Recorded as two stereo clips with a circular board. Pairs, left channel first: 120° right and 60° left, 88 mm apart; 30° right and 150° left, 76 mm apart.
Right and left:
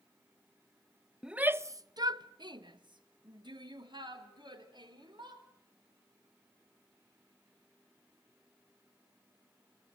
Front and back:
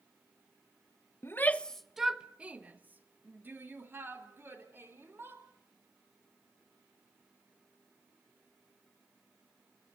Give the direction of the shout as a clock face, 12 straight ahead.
1 o'clock.